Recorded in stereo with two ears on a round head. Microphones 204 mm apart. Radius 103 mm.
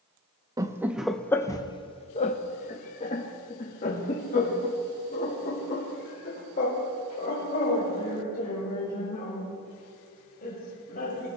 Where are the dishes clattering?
I don't hear dishes clattering.